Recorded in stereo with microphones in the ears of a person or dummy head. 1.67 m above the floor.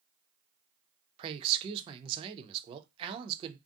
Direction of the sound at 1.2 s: 25° right (ahead or behind).